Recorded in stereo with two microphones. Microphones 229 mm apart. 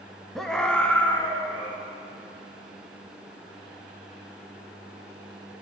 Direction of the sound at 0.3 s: Centre (ahead or behind).